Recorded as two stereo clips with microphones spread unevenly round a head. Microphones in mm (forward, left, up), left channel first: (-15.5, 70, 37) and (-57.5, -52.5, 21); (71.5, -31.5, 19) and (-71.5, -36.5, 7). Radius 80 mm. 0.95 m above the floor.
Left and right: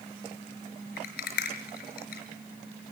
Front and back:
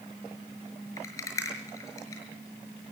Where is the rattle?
75° left, 5.5 m.